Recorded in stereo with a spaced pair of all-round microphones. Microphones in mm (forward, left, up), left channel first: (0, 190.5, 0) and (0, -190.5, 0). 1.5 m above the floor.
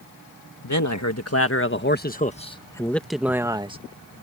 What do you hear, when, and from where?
0.6 s a man speaking: 50° left (ahead or behind); by 3.8 s 15° right (ahead or behind)